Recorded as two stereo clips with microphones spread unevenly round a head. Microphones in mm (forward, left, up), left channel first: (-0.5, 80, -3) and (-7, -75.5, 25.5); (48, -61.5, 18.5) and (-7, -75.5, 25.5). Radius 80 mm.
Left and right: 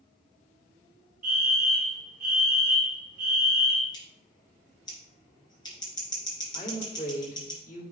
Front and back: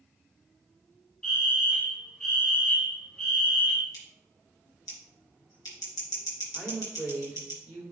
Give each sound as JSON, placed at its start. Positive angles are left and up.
{"t": 1.2, "sound": "a fire alarm", "azimuth_deg": -55, "distance_m": 2.0}
{"t": 3.9, "sound": "scissors", "azimuth_deg": 20, "distance_m": 3.0}
{"t": 6.5, "sound": "a woman speaking", "azimuth_deg": 120, "distance_m": 3.0}